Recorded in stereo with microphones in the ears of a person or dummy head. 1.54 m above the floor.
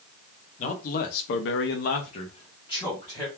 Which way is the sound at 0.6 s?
40° left (ahead or behind).